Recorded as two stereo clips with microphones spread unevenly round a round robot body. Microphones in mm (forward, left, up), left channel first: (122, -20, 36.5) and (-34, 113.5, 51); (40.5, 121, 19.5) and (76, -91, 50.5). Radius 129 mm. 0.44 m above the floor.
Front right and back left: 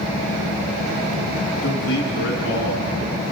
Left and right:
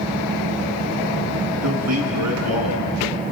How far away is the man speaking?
About 5 m.